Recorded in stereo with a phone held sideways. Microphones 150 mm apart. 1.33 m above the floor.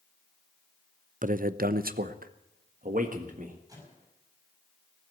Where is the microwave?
25° right (ahead or behind), 7.5 m.